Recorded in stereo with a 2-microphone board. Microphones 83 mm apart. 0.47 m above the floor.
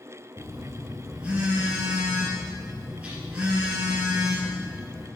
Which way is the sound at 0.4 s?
15° right (ahead or behind).